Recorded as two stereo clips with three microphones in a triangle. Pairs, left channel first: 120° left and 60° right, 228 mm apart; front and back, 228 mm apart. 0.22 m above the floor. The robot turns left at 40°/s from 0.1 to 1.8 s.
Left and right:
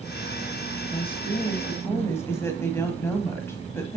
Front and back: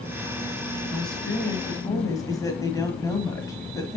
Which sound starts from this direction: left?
A woman speaking, at 0.9 s.